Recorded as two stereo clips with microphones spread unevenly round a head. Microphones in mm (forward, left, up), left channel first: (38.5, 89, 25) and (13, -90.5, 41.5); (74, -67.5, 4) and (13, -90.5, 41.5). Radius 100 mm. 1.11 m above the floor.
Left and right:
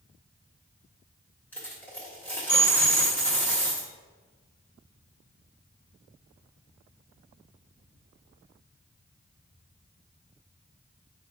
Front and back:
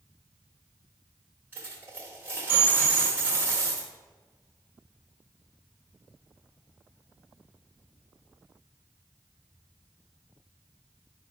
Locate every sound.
1.5 s a dropped coin: 165° left, 1.2 m